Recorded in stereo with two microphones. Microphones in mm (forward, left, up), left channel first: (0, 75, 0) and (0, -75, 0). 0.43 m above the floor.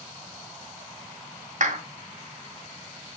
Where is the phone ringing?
I don't hear a phone ringing.